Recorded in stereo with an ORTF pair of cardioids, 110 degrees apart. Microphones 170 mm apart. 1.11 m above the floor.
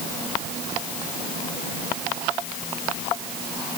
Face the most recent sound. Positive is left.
No sound to turn to.